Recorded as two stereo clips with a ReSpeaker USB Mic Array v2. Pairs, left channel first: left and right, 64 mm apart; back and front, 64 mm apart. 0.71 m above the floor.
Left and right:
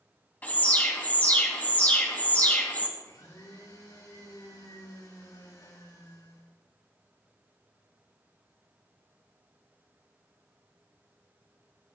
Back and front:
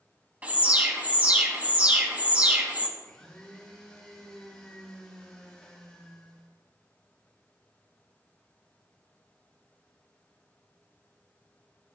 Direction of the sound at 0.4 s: 50° left.